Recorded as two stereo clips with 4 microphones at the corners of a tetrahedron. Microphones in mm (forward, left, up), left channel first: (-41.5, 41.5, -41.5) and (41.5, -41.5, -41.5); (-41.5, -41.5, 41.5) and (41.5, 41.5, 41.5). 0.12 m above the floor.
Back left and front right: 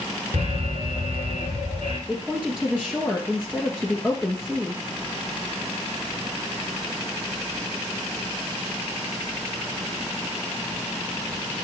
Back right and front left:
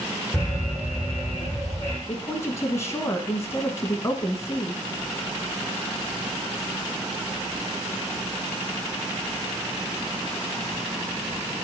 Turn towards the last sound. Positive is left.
turn(degrees=-115)